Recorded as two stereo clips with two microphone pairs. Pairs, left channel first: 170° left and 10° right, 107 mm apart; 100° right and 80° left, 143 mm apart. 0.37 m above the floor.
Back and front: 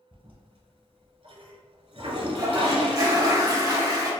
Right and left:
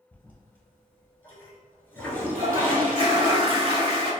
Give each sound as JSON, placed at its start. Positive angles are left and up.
{"t": 0.1, "sound": "a toilet flushing", "azimuth_deg": -25, "distance_m": 0.8}
{"t": 2.4, "sound": "a toilet flushing", "azimuth_deg": 35, "distance_m": 0.8}